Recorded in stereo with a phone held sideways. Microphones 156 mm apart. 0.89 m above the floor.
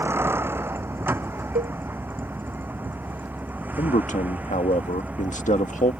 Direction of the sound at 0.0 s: 15° right (ahead or behind).